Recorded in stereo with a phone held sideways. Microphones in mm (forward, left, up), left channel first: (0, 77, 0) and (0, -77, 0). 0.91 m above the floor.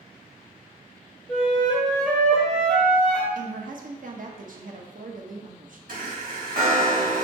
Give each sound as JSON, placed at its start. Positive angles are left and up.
{"t": 1.3, "sound": "a flute", "side_deg": 5, "distance_m": 1.2}
{"t": 3.4, "sound": "a woman speaking", "side_deg": -60, "distance_m": 0.8}
{"t": 5.9, "sound": "a chime", "side_deg": -65, "distance_m": 1.8}